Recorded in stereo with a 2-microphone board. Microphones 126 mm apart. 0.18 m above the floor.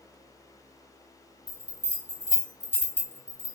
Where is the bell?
15° right (ahead or behind), 1.1 m.